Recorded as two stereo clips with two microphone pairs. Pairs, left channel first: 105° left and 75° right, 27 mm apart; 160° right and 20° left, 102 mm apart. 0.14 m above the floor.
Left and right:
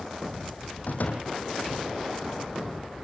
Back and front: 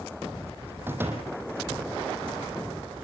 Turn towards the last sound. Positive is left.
turn(degrees=90)